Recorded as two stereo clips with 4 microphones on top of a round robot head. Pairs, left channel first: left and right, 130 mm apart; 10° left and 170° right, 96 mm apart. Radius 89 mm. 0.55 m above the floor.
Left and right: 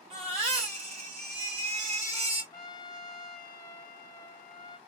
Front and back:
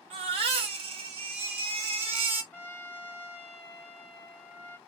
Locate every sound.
0.1 s a baby crying: 135° right, 1.1 m
2.5 s a trumpet: 60° left, 1.0 m